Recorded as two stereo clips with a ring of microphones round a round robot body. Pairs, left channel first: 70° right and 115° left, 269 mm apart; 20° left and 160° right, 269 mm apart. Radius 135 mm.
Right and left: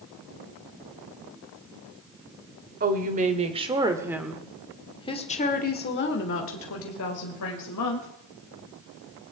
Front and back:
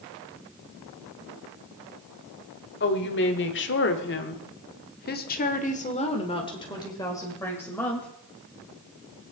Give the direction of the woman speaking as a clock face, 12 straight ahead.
10 o'clock.